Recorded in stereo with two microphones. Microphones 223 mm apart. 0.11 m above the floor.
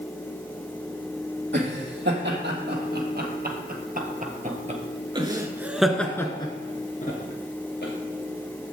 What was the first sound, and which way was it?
Laughter, 55° right (ahead or behind).